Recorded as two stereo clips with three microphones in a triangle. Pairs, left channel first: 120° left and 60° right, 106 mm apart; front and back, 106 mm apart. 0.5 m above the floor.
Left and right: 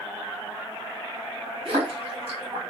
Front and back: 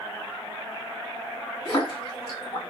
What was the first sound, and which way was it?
A splash, 40° right.